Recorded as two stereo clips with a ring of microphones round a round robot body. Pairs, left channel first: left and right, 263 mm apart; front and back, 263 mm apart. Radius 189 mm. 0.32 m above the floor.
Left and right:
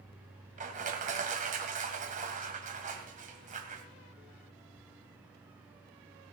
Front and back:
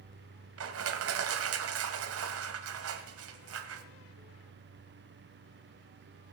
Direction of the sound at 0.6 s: 150° right.